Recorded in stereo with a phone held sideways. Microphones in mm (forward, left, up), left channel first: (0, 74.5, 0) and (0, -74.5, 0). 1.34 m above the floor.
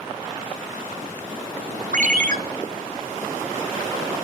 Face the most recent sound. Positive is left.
turn(degrees=-60)  # may be behind; listen again after turning